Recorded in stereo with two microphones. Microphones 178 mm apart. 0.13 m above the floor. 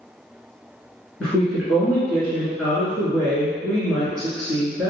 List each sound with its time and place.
1.2 s a woman speaking: 5° left (ahead or behind), 1.3 m